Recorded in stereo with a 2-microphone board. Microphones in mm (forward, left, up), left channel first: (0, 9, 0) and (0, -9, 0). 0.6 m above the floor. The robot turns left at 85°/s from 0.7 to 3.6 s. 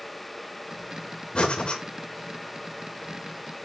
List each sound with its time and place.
1.4 s breathing: 105° left, 2 m; by 1.8 s 65° left, 2 m